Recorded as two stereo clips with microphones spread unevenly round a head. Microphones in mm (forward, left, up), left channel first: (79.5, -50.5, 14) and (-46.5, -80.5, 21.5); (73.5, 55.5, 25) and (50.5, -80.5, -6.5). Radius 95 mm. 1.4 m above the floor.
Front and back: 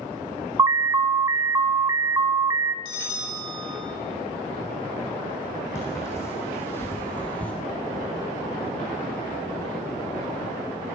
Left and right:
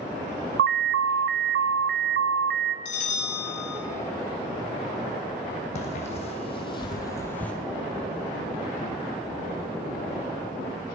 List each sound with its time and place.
0.6 s an alarm: 100° right, 0.7 m
2.9 s a bell: 55° left, 3.5 m
5.8 s footsteps: 90° left, 2.5 m